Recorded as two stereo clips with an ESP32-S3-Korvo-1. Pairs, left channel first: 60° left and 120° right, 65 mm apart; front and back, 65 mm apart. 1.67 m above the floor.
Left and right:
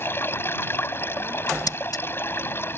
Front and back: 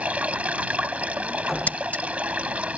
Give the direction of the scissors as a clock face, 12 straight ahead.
10 o'clock.